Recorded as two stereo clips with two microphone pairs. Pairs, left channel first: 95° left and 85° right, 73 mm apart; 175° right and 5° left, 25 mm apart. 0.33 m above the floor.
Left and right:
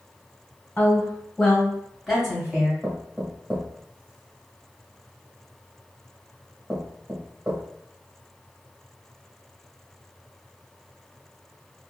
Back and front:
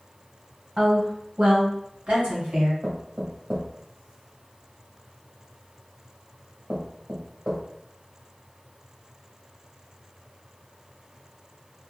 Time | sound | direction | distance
0.8 | a woman speaking | 35° left | 1.3 m
2.8 | knocking | 15° right | 1.0 m